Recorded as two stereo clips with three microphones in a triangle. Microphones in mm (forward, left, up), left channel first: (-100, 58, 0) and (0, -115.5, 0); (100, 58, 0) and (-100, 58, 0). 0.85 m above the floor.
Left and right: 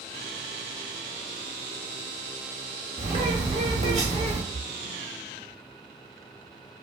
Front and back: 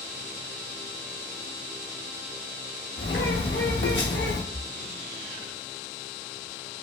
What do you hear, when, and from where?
3.0 s a bird: 5° right, 0.9 m
4.5 s a splash: 50° left, 0.9 m